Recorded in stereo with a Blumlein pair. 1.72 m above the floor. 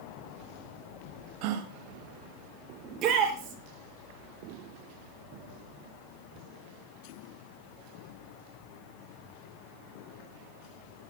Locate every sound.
1.4 s a gasp: 45° right, 2.0 m
2.8 s a shout: 35° right, 5.5 m